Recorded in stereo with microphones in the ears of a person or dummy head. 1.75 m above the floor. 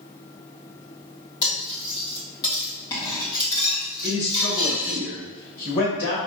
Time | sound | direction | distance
1.4 | cutlery clinking | 25° left (ahead or behind) | 1.9 m
4.0 | a man speaking | 55° left (ahead or behind) | 1.9 m